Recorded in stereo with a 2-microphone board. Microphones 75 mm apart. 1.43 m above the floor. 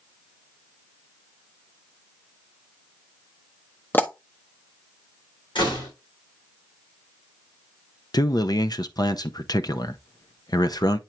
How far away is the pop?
About 0.8 m.